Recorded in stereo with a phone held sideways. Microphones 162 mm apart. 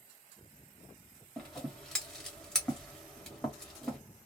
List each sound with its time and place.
1.4 s scissors: 5° left (ahead or behind), 1.1 m